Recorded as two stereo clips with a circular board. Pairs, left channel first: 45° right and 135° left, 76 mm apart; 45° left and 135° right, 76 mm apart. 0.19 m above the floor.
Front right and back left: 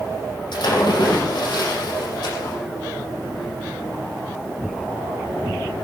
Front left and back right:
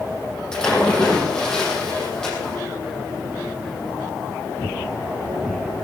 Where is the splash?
35° right, 6.5 m.